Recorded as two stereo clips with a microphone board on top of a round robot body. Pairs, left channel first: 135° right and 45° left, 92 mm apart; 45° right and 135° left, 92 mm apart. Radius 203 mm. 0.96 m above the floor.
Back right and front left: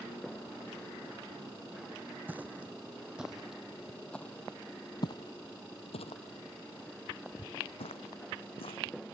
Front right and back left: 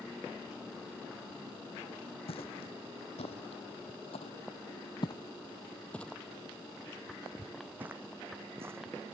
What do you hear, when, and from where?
2.3 s footsteps: 25° right; by 9.2 s 160° right